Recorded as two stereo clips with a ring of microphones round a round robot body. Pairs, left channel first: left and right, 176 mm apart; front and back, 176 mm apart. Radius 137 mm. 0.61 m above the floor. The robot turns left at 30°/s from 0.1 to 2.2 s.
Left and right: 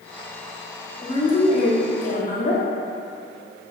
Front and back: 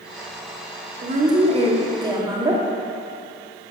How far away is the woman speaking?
About 1.7 m.